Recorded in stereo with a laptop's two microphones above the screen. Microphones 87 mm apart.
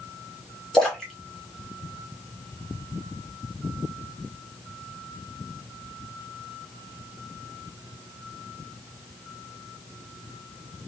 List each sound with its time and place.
0.7 s a splash: 5° left (ahead or behind), 1.2 m